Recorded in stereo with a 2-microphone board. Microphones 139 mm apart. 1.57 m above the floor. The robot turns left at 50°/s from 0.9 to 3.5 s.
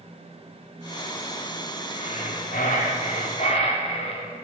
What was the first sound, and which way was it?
Breathing, 125° left.